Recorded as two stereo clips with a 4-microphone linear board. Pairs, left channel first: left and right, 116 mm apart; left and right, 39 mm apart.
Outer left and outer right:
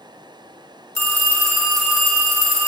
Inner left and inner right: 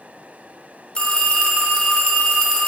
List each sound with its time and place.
0.9 s a phone ringing: 25° left (ahead or behind), 1.1 m